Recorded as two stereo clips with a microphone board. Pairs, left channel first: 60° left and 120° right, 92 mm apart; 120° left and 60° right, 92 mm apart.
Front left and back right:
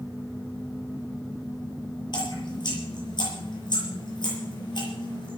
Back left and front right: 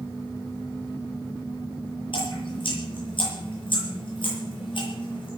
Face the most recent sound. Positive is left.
turn(degrees=95)